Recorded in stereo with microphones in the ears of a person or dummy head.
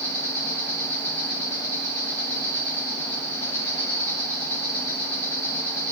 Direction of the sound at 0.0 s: 15° left (ahead or behind).